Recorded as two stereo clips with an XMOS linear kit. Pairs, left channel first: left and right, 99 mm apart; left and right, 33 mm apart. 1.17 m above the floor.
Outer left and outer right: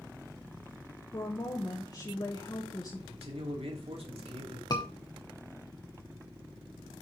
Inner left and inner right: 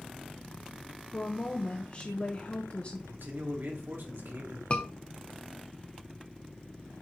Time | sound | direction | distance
1.1 | a woman speaking | 45° left (ahead or behind) | 1.1 m
3.1 | a man speaking | 85° right | 2.5 m
4.7 | a scream | 40° left (ahead or behind) | 0.7 m